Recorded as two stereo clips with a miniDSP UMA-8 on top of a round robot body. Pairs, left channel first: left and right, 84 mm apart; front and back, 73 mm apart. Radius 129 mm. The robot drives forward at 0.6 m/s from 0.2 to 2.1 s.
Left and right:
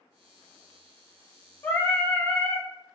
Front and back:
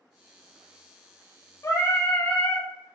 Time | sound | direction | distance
1.6 | singing | 30° left | 1.0 m